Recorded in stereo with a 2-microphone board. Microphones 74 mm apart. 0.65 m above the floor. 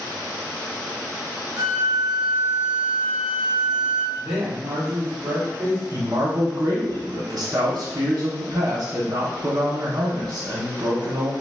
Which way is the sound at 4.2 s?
35° right (ahead or behind).